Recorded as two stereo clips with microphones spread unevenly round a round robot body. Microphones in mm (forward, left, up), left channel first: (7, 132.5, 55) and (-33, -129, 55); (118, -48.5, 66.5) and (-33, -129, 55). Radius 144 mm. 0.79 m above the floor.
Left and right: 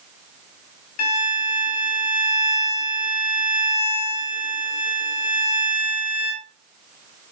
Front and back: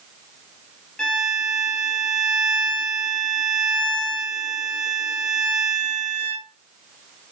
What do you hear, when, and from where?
1.0 s a violin: 115° left, 3 m